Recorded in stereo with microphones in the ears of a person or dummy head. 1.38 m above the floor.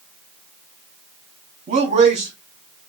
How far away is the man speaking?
About 1.1 m.